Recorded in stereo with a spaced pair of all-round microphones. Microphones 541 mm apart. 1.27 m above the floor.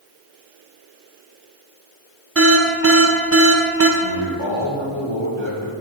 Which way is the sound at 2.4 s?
25° right (ahead or behind).